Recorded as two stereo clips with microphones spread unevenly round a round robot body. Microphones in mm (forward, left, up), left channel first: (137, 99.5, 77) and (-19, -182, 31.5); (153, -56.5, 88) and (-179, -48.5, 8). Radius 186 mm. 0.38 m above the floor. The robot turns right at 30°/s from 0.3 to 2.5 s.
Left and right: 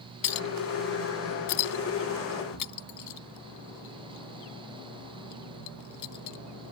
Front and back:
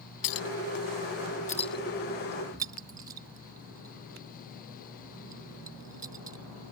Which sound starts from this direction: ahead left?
A clink, at 0.2 s.